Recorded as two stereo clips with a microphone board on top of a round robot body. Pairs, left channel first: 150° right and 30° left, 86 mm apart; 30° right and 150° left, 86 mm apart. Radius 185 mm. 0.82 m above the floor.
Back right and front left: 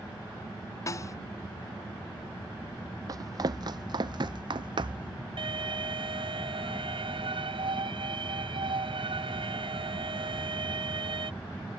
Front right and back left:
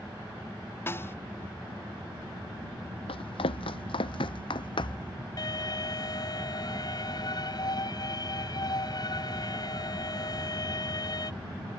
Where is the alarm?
10° left.